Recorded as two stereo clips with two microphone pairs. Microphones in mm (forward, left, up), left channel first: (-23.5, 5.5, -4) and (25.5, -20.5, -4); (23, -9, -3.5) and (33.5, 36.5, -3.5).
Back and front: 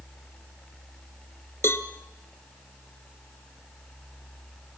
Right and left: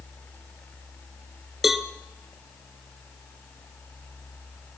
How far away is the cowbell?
About 1.3 m.